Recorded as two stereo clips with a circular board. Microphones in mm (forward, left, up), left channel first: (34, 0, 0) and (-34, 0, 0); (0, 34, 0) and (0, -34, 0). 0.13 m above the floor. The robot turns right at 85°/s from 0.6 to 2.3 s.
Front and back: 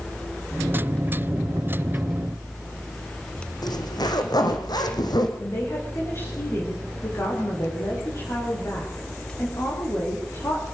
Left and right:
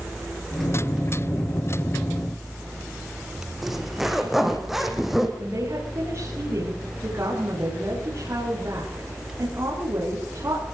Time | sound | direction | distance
3.6 | a zipper | 5° right | 4 m
5.4 | a woman speaking | 45° right | 9.5 m